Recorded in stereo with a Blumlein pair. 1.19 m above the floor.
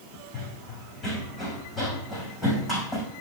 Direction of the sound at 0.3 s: 15° left.